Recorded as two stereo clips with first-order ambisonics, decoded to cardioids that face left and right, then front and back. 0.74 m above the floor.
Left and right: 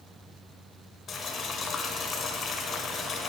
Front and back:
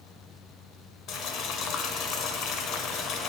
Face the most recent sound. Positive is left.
turn(degrees=35)